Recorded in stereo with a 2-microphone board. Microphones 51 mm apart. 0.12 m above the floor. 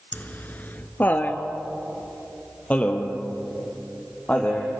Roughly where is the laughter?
Left.